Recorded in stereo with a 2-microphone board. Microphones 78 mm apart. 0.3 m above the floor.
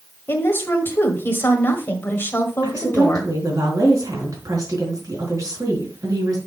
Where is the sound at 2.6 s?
50° right (ahead or behind), 3.5 m.